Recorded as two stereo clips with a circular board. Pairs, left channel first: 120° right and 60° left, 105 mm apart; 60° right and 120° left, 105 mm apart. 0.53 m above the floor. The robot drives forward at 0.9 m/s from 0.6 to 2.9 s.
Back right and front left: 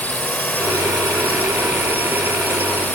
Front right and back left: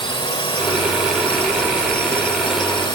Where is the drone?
50° right.